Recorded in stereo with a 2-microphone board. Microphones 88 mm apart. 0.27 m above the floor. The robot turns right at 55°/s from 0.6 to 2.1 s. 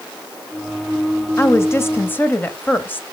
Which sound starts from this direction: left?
A woman speaking, at 1.4 s.